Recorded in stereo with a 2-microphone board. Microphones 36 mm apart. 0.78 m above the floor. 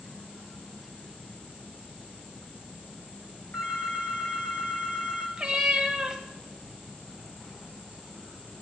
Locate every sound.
3.5 s a phone ringing: 80° left, 3.5 m
5.4 s a cat meowing: 20° right (ahead or behind), 1.0 m